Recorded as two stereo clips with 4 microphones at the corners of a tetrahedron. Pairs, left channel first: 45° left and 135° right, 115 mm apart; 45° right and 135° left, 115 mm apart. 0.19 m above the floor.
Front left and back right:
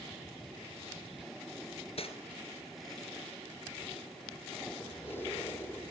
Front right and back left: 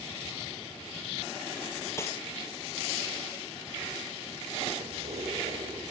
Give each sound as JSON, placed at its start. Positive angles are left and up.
{"t": 2.0, "sound": "cutlery clinking", "azimuth_deg": 20, "distance_m": 2.0}
{"t": 4.8, "sound": "keys jangling", "azimuth_deg": 115, "distance_m": 6.5}